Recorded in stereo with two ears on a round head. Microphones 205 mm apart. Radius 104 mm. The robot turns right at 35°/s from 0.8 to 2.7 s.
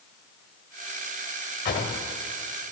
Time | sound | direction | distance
1.6 | a drawer | 50° left (ahead or behind) | 1.8 m